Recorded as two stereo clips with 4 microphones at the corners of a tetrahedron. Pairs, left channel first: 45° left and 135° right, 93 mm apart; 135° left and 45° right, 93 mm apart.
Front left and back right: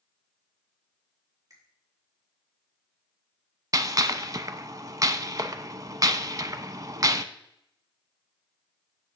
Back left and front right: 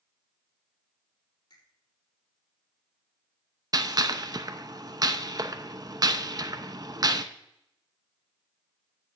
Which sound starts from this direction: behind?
A finger snap, at 1.5 s.